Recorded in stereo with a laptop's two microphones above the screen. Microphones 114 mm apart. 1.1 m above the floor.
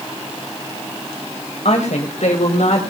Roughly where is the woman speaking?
Left.